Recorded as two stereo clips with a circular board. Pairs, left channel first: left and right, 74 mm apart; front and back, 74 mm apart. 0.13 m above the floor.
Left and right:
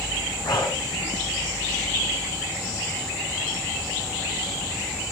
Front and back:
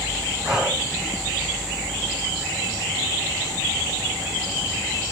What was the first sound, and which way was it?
Breathing, 100° left.